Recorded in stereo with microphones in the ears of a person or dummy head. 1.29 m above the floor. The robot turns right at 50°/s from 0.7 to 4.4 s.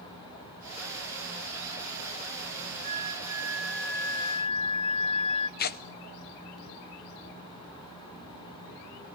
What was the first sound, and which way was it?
A flute, 45° right.